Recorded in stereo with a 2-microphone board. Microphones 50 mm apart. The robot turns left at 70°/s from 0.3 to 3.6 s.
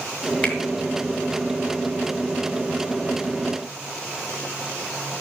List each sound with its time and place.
0.4 s a finger snap: 35° left (ahead or behind), 2.5 m; by 0.6 s 25° left (ahead or behind), 2.5 m